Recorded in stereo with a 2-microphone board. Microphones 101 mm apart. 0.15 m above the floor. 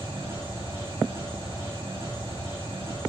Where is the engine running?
25° right (ahead or behind), 6.5 m.